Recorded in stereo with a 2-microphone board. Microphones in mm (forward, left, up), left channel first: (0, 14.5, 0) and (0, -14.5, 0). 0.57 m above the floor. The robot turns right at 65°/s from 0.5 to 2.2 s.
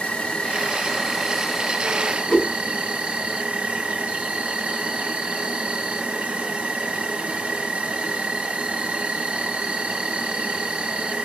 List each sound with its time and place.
0.0 s an insect: 125° left, 0.9 m; by 11.3 s 125° right, 0.9 m
2.3 s a whoosh: 50° left (ahead or behind), 1.2 m